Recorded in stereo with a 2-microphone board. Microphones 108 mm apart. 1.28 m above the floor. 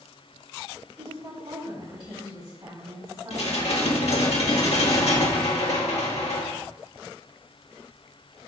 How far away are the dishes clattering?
About 1.6 m.